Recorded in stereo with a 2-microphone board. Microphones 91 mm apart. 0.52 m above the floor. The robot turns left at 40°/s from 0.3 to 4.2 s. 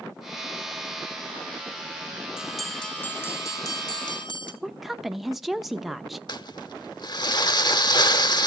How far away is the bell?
About 1.8 m.